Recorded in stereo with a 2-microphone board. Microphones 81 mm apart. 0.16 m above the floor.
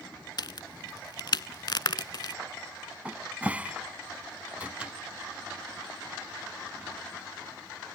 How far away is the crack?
About 0.5 m.